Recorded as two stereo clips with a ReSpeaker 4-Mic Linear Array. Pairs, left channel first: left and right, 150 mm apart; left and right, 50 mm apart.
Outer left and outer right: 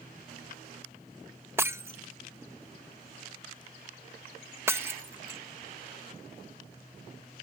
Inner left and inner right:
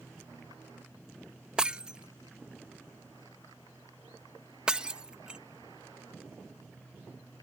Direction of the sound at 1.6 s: 15° right (ahead or behind).